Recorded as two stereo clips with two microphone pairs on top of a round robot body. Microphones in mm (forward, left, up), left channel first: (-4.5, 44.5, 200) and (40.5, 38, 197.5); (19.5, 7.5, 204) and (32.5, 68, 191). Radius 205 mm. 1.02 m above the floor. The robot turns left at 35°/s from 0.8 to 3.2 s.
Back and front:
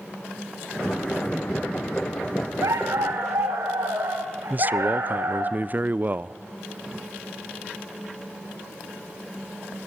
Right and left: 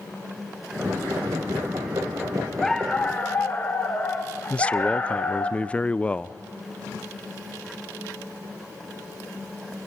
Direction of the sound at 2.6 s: 35° right.